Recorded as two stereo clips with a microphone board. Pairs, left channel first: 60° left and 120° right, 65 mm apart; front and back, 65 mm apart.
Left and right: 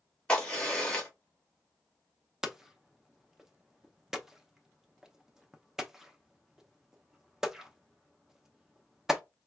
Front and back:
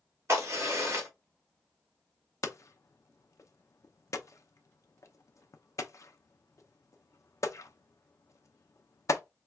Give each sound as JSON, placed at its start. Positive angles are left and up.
{"t": 0.3, "sound": "a crack", "azimuth_deg": 135, "distance_m": 2.0}
{"t": 2.4, "sound": "hammering", "azimuth_deg": -40, "distance_m": 0.6}